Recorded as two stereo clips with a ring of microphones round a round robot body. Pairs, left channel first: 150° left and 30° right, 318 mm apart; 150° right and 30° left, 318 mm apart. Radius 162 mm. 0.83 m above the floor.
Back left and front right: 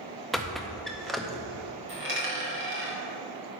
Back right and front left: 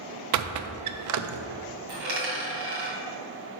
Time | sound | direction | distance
0.3 | a squeak | 60° left | 0.5 m
1.9 | a dropped coin | 25° left | 2.5 m